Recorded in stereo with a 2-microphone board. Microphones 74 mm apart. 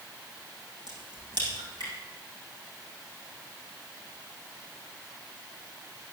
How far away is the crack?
About 6.5 m.